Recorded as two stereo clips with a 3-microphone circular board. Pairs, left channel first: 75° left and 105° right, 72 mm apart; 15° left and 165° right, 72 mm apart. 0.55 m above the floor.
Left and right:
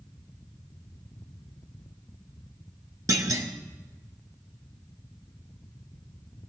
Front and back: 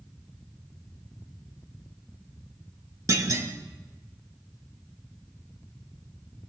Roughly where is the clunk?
Behind right.